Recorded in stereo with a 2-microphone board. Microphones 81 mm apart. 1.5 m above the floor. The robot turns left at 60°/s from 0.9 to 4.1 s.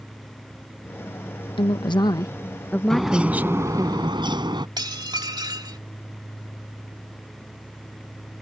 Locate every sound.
1.6 s a woman speaking: 90° left; by 3.9 s 50° right
2.9 s a bird: 5° left; by 4.7 s 70° right
4.8 s dishes clattering: 60° right (ahead or behind)